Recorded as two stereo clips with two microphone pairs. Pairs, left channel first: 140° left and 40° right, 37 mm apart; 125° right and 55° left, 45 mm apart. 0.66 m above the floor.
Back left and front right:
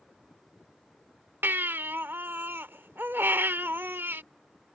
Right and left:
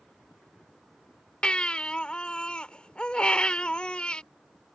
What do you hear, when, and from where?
1.4 s a baby crying: 55° right